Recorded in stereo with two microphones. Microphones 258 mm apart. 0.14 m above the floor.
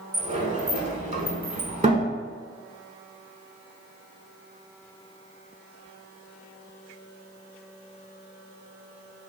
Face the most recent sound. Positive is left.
turn(degrees=-25)  # may be behind; listen again after turning